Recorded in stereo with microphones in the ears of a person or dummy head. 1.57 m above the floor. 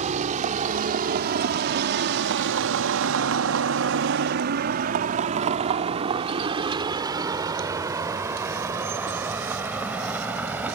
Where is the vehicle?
45° right (ahead or behind); by 10.8 s 5° right (ahead or behind).